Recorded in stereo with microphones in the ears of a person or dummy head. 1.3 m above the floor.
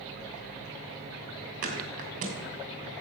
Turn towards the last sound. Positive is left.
turn(degrees=-45)  # may be behind; listen again after turning